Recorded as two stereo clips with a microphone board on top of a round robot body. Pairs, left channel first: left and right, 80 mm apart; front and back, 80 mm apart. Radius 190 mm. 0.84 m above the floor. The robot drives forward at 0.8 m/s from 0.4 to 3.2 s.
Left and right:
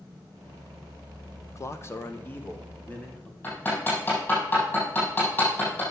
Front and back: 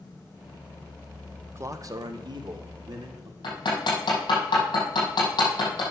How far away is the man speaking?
About 0.9 m.